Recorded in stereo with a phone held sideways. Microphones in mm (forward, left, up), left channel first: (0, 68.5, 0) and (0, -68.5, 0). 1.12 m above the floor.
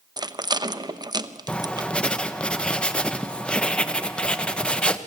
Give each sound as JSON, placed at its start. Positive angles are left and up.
{"t": 0.2, "sound": "a rattle", "side_deg": -30, "distance_m": 0.9}
{"t": 1.5, "sound": "writing", "side_deg": 5, "distance_m": 1.1}